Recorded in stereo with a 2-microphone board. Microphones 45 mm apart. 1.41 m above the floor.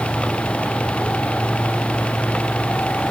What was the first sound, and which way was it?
Only background noise.